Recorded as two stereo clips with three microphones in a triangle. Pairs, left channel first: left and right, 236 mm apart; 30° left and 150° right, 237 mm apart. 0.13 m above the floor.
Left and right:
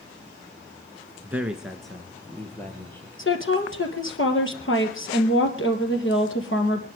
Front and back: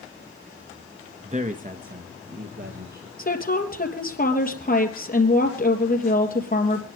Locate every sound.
1.2 s a man speaking: 165° right, 1.1 m; by 3.1 s 170° left, 2.5 m
3.2 s a woman speaking: 75° left, 3 m